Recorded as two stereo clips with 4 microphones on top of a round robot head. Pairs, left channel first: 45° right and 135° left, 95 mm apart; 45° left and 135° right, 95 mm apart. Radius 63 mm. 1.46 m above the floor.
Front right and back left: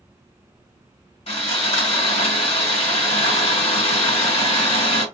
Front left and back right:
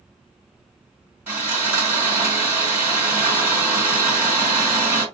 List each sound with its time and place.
1.3 s sawing: 65° right, 2.5 m